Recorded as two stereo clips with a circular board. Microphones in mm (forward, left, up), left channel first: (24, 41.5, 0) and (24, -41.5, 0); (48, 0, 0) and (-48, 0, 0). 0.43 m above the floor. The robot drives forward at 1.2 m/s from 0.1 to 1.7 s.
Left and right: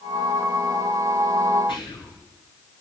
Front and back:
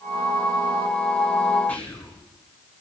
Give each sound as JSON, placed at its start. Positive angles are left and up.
{"t": 1.7, "sound": "whispering", "azimuth_deg": 75, "distance_m": 6.0}